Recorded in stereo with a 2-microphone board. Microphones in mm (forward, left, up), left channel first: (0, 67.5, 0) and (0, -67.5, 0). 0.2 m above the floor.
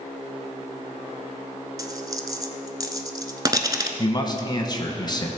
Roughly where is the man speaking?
Left.